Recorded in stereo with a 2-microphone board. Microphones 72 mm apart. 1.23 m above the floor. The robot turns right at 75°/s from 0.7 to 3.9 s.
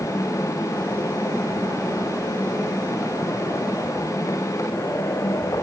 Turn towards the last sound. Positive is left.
No sound to turn to.